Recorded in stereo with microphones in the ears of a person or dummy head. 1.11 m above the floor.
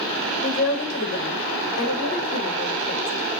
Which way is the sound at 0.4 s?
65° left (ahead or behind).